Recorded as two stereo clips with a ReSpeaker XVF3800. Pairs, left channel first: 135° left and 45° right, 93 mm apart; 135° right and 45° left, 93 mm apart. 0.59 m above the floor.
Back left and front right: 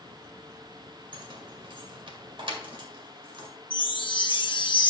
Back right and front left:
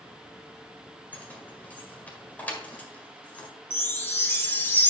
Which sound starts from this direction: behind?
A chime, at 3.7 s.